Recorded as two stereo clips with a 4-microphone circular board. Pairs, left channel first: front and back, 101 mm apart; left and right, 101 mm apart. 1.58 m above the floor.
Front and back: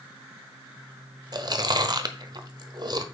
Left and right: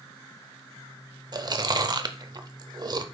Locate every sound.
1.3 s chewing: 135° right, 0.7 m